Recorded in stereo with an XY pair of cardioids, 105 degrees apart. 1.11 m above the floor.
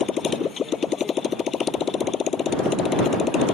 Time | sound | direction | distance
0.0 | a motorcycle | 45° left | ?